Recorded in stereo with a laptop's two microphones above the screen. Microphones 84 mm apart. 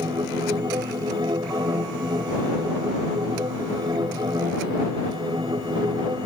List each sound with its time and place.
0.0 s a machine running: 75° right (ahead or behind)